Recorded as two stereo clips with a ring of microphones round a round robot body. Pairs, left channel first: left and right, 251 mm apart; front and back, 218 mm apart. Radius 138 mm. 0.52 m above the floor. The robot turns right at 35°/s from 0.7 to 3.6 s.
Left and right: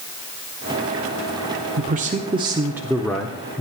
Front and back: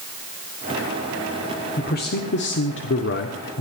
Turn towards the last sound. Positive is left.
turn(degrees=20)